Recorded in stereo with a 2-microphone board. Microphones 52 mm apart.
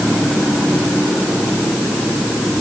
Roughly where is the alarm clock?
I don't hear an alarm clock.